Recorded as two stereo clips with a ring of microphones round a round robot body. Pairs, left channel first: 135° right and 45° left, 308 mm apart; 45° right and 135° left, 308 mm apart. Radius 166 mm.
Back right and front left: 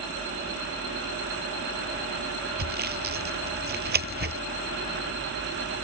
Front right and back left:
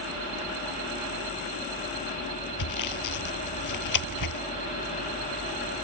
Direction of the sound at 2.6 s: 15° right.